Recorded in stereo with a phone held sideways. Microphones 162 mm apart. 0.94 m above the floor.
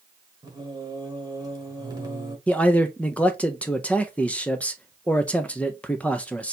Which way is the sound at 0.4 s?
25° right (ahead or behind).